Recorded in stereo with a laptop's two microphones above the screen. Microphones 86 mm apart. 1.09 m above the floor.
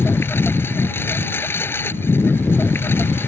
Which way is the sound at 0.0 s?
25° left (ahead or behind).